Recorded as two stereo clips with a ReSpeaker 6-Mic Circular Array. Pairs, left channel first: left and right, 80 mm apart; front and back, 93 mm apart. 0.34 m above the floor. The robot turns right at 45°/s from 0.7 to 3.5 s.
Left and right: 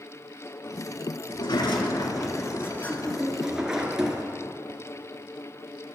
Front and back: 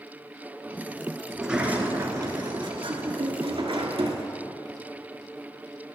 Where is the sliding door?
90° left, 1.3 m; by 4.2 s 170° right, 1.3 m.